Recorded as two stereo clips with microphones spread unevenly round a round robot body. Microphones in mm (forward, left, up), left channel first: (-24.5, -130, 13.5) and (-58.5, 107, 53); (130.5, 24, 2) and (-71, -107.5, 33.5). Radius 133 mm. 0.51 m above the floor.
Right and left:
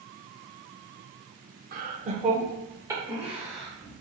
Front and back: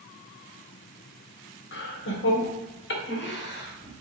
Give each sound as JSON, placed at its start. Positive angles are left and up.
{"t": 1.7, "sound": "laughter", "azimuth_deg": 45, "distance_m": 1.6}